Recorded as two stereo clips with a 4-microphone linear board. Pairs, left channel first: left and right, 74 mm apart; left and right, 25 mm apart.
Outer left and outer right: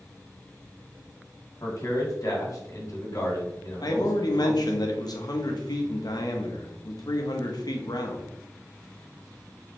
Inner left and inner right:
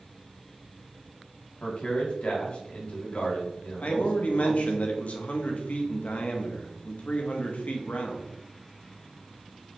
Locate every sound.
1.6 s a man speaking: 55° left (ahead or behind), 1.9 m
3.8 s a man speaking: 65° left (ahead or behind), 1.0 m